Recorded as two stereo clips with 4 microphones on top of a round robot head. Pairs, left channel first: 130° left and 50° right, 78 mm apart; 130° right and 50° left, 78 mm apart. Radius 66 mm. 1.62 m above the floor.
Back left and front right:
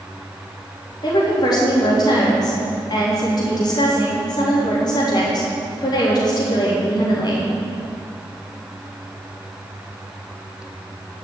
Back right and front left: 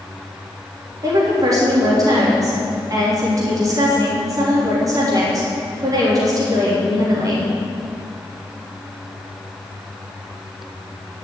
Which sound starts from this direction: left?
A woman speaking, at 1.0 s.